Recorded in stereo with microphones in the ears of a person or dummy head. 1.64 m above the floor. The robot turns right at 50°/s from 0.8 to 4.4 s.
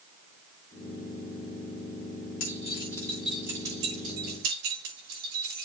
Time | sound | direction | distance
2.4 | keys jangling | 40° left (ahead or behind) | 4.5 m